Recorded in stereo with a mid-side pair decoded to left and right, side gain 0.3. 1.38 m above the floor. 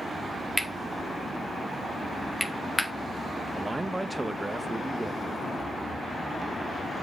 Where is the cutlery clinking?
5° right, 1.9 m.